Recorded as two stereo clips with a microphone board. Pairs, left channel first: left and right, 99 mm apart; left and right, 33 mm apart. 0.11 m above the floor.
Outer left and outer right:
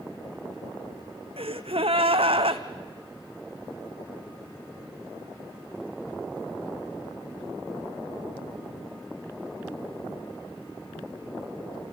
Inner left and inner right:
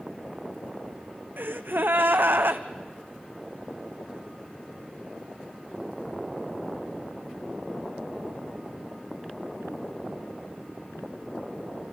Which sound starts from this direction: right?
A gasp, at 1.4 s.